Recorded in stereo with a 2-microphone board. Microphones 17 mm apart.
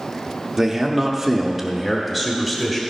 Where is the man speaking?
20° right (ahead or behind), 0.8 m; by 2.8 s 10° left (ahead or behind), 1.1 m.